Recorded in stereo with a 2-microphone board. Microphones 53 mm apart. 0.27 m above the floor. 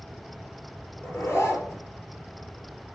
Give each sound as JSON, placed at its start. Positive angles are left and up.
{"t": 1.0, "sound": "a zipper", "side_deg": 50, "distance_m": 4.0}